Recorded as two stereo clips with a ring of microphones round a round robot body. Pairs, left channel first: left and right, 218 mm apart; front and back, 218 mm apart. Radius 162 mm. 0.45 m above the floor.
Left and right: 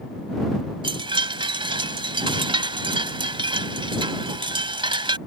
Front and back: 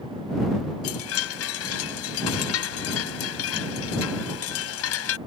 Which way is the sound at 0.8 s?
20° right.